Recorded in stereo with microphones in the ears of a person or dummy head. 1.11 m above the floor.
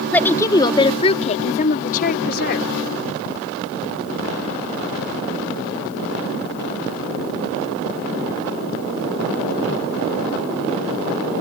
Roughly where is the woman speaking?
Centre.